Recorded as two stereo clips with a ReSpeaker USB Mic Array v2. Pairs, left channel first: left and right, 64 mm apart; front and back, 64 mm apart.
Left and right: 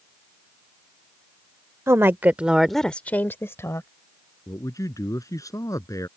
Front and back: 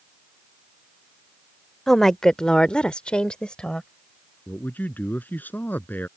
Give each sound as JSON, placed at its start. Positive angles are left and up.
{"t": 1.9, "sound": "a woman speaking", "azimuth_deg": -80}
{"t": 4.5, "sound": "a man speaking", "azimuth_deg": 60}